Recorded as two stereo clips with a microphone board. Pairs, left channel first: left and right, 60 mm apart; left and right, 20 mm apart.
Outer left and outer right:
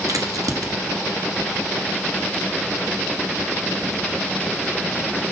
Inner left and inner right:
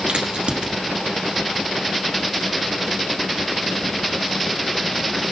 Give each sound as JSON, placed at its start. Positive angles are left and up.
{"t": 0.1, "sound": "a crack", "side_deg": -70, "distance_m": 1.3}